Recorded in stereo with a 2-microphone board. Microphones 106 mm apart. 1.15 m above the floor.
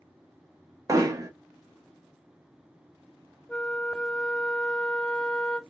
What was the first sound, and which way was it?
Hammering, 35° right (ahead or behind).